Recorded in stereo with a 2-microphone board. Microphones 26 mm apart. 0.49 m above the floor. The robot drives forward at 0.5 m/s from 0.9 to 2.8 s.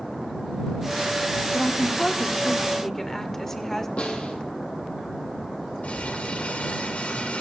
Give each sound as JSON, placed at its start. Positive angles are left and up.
{"t": 1.5, "sound": "a woman speaking", "side_deg": 25, "distance_m": 0.9}
{"t": 4.0, "sound": "a snare drum", "side_deg": 50, "distance_m": 3.0}
{"t": 5.8, "sound": "crumpling", "side_deg": 70, "distance_m": 3.5}